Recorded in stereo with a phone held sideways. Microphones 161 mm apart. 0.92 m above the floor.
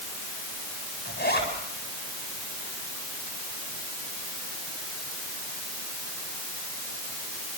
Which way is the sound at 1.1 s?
85° left.